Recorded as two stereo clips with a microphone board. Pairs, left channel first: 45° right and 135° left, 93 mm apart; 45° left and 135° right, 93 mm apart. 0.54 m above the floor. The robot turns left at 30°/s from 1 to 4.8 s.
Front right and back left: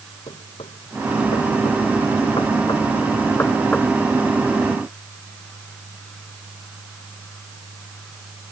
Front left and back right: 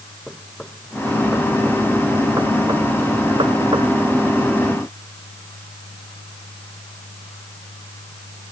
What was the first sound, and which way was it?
Knocking, 40° right.